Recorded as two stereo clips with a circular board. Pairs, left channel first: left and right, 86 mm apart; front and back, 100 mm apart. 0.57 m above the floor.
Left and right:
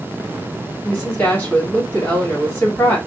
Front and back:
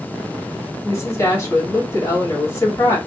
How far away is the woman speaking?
About 1.5 m.